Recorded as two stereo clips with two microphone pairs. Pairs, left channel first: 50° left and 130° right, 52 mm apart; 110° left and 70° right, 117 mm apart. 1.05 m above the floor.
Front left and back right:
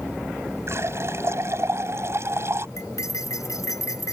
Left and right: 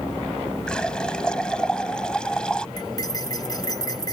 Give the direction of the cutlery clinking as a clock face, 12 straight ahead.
10 o'clock.